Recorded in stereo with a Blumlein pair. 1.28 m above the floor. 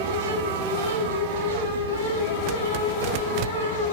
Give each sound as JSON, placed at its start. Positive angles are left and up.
{"t": 0.0, "sound": "a fan", "azimuth_deg": -70, "distance_m": 2.0}